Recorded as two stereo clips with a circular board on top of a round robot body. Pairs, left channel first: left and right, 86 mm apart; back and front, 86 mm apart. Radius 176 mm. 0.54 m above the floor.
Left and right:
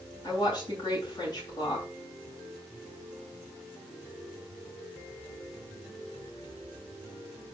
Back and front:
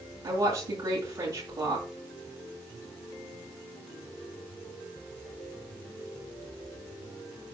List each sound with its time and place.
0.2 s a woman speaking: 50° left, 8 m